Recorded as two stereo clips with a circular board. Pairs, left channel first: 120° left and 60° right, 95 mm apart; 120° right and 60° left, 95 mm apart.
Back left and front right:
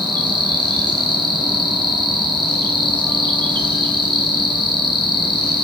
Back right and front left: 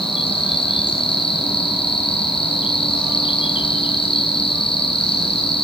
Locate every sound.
0.0 s an insect: 100° right, 6.5 m